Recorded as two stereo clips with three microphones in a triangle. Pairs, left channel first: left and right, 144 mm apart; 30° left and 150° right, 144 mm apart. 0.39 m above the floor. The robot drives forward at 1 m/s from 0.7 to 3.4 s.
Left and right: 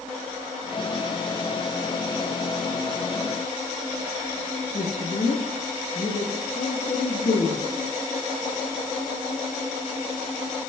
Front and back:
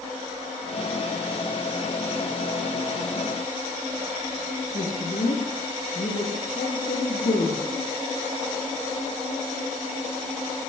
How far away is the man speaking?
About 6 m.